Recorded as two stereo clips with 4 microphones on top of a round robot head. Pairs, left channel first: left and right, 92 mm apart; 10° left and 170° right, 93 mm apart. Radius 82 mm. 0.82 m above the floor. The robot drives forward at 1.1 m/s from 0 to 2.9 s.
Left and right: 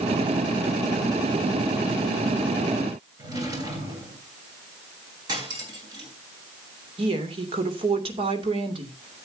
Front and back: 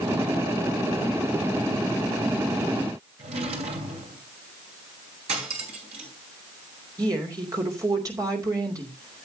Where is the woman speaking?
115° right, 2.5 m.